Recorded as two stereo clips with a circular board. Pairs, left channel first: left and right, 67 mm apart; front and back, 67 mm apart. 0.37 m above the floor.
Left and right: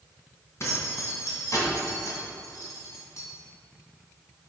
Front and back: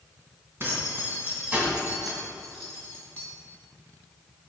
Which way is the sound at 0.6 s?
130° left.